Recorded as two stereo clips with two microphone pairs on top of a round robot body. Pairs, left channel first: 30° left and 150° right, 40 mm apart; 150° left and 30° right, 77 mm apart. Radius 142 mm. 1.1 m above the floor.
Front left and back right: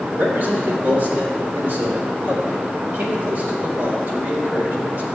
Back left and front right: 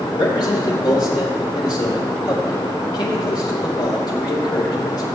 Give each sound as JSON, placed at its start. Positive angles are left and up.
{"t": 0.1, "sound": "a man speaking", "azimuth_deg": 175, "distance_m": 4.5}